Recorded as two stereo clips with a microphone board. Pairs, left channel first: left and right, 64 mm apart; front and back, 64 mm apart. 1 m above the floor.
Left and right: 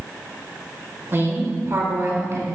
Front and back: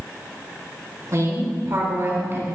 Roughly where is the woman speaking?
Behind right.